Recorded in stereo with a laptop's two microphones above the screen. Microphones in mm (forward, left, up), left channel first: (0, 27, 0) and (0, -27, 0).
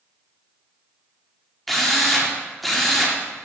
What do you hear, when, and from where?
1.7 s a drill: centre (ahead or behind), 0.8 m